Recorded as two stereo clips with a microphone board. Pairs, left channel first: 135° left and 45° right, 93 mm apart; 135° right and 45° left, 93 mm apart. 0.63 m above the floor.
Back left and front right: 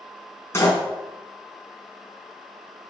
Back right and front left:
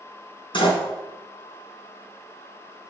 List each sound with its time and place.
0.5 s a door slam: 165° right, 4.5 m